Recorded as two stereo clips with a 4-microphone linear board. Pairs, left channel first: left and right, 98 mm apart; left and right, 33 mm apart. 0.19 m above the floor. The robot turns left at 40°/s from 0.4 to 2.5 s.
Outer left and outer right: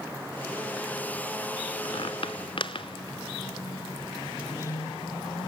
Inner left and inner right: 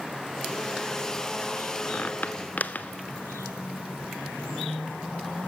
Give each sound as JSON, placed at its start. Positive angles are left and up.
{"t": 1.9, "sound": "a squeak", "side_deg": 65, "distance_m": 1.3}